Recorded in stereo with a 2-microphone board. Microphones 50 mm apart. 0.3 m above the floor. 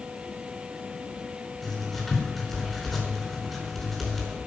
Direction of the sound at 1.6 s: Centre (ahead or behind).